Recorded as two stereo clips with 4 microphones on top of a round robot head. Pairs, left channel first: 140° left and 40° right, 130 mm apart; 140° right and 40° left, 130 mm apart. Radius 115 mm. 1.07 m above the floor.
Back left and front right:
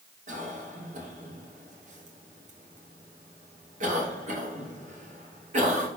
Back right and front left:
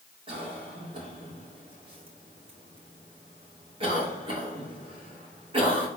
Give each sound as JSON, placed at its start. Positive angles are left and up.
{"t": 0.3, "sound": "a cough", "azimuth_deg": -10, "distance_m": 2.5}